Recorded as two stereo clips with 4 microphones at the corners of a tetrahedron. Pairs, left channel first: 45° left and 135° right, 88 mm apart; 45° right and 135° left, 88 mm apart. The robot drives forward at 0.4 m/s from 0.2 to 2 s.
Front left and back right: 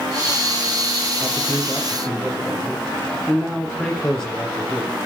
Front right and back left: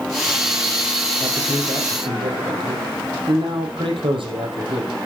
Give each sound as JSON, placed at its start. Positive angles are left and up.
{"t": 1.2, "sound": "a man speaking", "azimuth_deg": 125, "distance_m": 3.5}